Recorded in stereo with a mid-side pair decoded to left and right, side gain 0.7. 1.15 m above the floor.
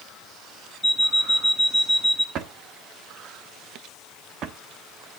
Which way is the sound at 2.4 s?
50° right.